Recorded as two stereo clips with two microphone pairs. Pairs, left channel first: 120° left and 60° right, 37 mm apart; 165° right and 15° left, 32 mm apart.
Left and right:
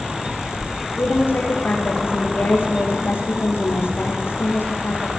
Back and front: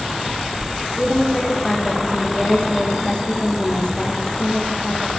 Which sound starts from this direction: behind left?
A woman speaking, at 1.0 s.